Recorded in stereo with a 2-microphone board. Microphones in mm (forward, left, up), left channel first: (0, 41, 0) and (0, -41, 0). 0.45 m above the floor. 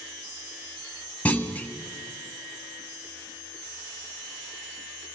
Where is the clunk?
20° left (ahead or behind), 0.7 m.